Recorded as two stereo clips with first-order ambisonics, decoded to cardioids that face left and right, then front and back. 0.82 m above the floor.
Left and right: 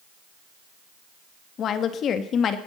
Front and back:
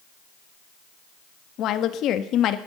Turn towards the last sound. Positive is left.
turn(degrees=40)